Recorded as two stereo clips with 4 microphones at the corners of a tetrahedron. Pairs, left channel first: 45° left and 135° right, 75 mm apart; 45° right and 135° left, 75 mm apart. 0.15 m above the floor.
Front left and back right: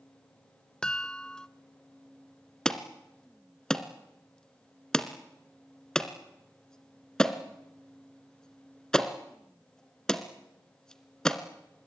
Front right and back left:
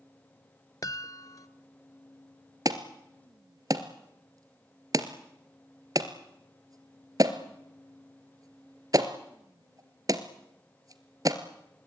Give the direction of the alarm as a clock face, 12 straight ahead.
8 o'clock.